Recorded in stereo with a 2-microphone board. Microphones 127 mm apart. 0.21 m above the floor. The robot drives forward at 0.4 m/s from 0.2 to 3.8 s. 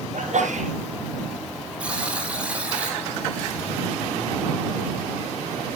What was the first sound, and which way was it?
A sneeze, 70° right (ahead or behind).